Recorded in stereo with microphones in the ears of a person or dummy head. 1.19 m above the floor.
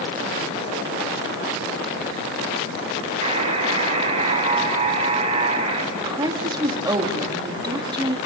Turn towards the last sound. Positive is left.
turn(degrees=-20)  # may be behind; listen again after turning